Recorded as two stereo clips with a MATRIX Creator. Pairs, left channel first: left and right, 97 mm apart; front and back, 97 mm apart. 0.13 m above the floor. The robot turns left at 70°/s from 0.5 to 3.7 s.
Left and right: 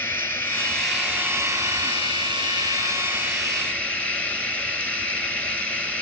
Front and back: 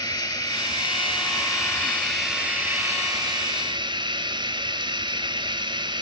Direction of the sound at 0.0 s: 30° left.